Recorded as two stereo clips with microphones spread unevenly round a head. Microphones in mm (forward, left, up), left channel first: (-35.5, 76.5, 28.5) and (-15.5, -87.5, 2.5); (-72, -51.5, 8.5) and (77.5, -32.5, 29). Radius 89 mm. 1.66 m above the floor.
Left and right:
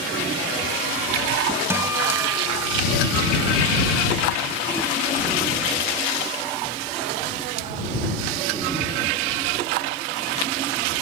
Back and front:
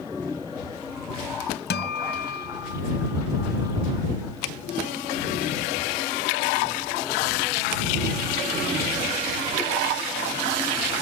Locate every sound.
1.7 s a guitar: 160° right